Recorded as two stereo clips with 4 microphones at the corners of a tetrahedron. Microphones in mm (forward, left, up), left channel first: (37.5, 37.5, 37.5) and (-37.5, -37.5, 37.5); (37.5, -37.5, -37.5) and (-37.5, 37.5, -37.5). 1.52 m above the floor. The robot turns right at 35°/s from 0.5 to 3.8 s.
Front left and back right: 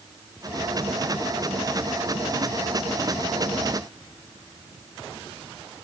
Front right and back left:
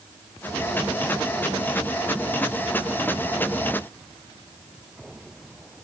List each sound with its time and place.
Only background noise.